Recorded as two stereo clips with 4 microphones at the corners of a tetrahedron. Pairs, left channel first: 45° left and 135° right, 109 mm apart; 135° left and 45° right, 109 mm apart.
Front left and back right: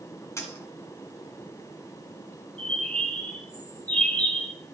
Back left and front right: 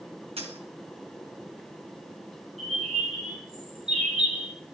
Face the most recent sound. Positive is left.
turn(degrees=-35)